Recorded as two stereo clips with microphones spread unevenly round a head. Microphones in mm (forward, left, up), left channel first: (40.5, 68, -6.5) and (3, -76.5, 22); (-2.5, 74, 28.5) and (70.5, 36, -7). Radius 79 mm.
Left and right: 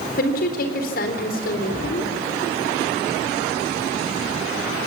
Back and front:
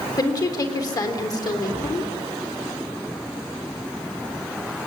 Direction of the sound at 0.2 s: 105° left.